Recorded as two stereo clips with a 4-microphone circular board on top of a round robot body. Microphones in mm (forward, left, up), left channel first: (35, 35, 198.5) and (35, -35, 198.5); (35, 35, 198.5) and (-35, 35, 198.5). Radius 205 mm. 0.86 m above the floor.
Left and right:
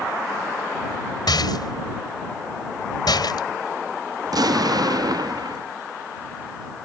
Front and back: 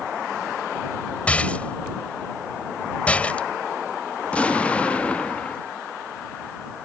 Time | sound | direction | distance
1.3 | a rattle | 75° left | ?
4.2 | an explosion | 70° right | ?